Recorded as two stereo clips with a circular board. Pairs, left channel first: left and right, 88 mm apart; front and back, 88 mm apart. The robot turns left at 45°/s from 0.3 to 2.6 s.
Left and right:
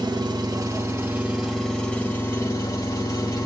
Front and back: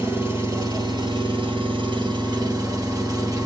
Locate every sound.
0.0 s an engine running: 125° right, 1.5 m; by 3.5 s 130° left, 1.5 m